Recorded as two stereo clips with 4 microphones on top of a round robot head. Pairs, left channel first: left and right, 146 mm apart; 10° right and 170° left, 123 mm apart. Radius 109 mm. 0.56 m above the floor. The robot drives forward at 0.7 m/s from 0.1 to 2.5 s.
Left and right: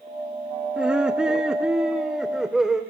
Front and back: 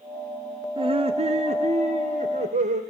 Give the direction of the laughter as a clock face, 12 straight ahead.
6 o'clock.